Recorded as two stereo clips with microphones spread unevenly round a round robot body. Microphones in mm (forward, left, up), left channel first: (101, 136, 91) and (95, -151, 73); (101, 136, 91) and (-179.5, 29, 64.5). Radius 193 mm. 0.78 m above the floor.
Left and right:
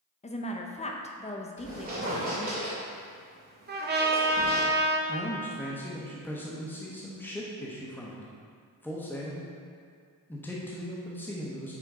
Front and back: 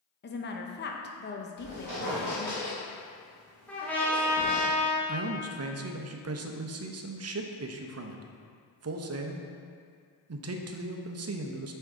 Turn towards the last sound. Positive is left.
turn(degrees=175)